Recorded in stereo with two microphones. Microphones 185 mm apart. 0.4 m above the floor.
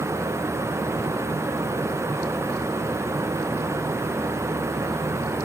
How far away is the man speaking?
I don't hear a man speaking.